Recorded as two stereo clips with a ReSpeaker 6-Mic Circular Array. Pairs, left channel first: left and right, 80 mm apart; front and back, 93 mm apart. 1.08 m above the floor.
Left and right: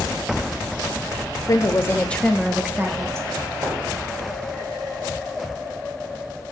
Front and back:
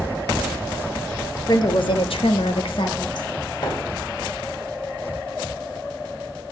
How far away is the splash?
About 6 m.